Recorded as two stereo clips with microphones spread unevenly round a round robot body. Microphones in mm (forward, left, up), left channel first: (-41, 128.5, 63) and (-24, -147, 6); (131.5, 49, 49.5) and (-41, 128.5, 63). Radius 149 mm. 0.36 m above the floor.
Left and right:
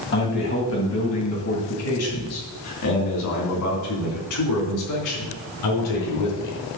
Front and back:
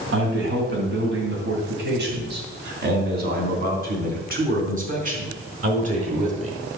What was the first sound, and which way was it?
A man speaking, 150° left.